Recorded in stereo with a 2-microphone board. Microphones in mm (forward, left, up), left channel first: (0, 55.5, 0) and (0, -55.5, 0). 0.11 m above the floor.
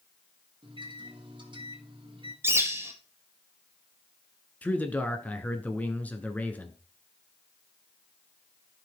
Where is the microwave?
45° right (ahead or behind), 1.6 m.